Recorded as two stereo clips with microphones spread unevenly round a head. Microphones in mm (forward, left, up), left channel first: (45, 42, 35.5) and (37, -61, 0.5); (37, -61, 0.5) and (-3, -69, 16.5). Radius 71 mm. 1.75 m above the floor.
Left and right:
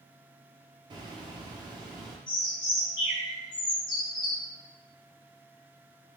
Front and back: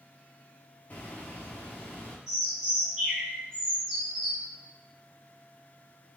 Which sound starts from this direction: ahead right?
A bird, at 0.9 s.